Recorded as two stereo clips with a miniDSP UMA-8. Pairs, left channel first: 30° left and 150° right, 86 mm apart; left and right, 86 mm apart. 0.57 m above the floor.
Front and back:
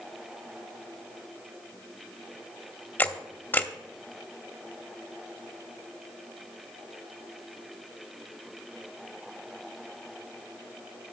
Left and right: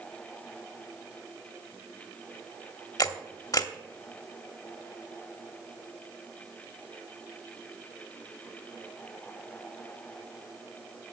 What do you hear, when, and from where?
3.0 s a camera shutter: 85° left, 0.9 m